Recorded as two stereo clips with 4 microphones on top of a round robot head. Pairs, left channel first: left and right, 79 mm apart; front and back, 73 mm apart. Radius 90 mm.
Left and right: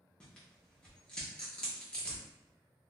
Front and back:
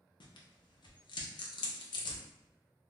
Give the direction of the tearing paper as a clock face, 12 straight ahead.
12 o'clock.